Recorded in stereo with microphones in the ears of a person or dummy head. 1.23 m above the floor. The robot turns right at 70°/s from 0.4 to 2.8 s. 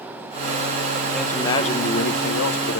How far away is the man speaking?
About 1.2 m.